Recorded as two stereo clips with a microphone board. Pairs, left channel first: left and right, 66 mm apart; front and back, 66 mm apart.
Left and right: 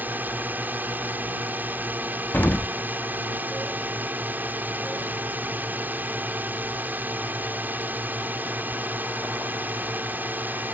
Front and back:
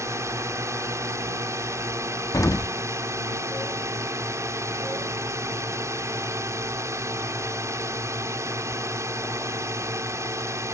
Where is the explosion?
30° left.